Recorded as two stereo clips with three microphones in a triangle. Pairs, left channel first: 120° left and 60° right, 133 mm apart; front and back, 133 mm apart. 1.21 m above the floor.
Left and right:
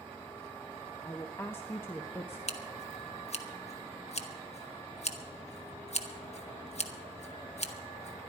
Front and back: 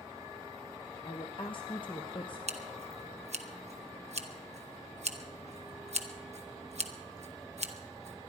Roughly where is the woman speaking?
Ahead left.